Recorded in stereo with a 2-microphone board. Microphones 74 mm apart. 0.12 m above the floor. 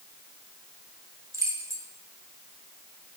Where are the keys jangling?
40° right (ahead or behind), 1.3 m.